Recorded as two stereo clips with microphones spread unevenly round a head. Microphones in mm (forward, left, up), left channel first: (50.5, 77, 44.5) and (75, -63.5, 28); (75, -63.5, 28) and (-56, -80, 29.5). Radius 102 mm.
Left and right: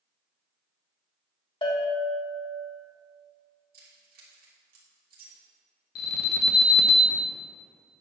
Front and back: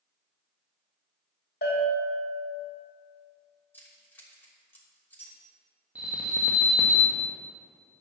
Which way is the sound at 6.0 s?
105° left.